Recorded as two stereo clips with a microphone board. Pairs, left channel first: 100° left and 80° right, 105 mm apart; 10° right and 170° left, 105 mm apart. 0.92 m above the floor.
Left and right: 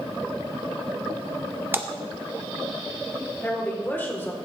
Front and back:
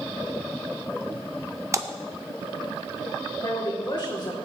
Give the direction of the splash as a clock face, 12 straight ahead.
5 o'clock.